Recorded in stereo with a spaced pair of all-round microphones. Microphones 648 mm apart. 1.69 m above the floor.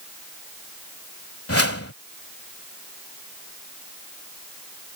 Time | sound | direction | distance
1.5 | a whoosh | 20° left (ahead or behind) | ?